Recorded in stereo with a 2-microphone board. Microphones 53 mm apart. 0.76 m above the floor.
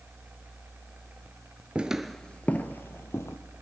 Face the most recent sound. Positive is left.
turn(degrees=60)  # may be behind; listen again after turning